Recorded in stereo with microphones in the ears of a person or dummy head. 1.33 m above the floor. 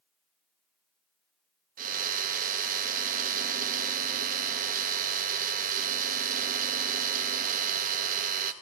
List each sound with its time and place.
1.8 s a drill: 50° right (ahead or behind), 1.8 m